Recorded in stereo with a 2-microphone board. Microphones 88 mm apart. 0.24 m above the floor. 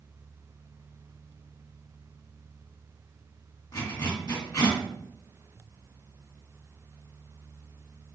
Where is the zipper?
45° left (ahead or behind), 2 m.